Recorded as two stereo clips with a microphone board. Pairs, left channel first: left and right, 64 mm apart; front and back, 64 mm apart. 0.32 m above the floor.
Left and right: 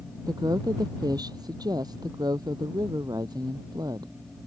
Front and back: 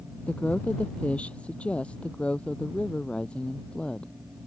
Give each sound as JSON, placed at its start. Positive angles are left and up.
{"t": 0.3, "sound": "a woman speaking", "azimuth_deg": -70}